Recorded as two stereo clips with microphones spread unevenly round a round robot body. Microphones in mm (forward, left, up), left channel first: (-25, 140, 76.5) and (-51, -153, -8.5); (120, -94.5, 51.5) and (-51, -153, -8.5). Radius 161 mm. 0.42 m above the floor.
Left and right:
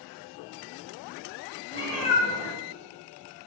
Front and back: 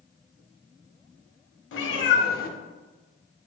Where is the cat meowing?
10° left, 0.7 m; by 3.5 s 55° right, 1.2 m.